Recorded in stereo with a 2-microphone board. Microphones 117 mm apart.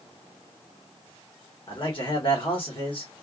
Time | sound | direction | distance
1.7 | a man speaking | 50° left (ahead or behind) | 1.4 m